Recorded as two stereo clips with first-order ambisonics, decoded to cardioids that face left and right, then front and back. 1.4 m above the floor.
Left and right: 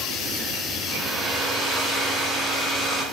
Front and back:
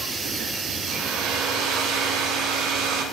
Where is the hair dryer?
170° right, 2.5 m.